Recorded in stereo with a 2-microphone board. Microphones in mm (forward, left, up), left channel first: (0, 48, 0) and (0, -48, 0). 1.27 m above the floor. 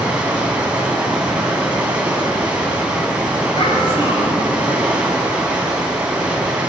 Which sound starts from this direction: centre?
Running water, at 0.0 s.